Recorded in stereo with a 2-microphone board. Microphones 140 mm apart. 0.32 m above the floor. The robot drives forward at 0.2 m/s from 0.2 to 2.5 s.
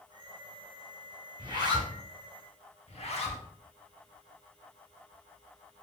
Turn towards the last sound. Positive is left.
turn(degrees=50)  # may be behind; listen again after turning